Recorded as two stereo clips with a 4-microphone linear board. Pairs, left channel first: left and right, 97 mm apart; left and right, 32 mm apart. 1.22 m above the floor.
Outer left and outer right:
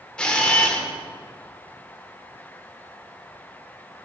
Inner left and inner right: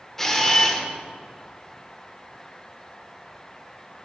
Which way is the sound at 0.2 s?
10° left (ahead or behind).